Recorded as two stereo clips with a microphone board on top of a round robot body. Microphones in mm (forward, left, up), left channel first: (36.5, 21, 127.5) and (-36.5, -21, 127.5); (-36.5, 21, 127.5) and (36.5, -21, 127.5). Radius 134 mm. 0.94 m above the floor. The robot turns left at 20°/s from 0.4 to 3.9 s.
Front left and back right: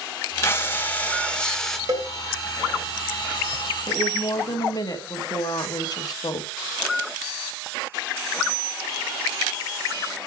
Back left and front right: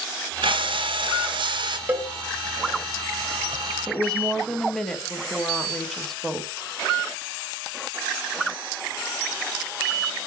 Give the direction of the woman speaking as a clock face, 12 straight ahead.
10 o'clock.